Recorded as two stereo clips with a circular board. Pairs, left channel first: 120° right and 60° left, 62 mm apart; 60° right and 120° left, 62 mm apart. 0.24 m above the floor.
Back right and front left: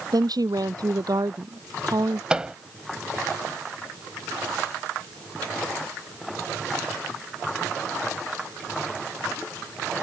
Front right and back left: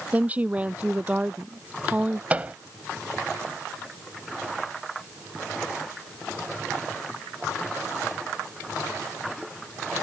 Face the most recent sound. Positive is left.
turn(degrees=110)